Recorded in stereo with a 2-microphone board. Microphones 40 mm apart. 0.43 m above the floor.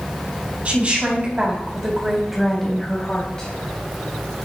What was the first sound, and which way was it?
A woman speaking, 40° right (ahead or behind).